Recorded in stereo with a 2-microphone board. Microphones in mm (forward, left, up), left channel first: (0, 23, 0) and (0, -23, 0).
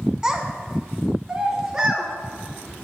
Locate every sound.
0.2 s a child speaking: 15° right (ahead or behind), 0.7 m; by 2.1 s 10° right (ahead or behind), 1.4 m